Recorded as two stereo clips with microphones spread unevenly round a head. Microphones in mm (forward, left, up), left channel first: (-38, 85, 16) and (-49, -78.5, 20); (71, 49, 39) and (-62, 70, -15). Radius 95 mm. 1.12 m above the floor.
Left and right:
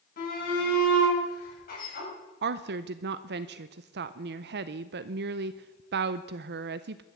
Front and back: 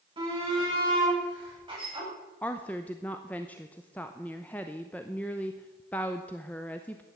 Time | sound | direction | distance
0.2 | a shout | 120° left | 8.5 m
2.4 | a woman speaking | 100° right | 0.6 m